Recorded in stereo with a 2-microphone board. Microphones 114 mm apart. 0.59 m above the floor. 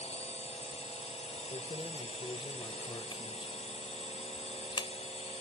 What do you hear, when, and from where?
0.0 s a drone: 70° left (ahead or behind)
1.5 s keys jangling: 45° left (ahead or behind)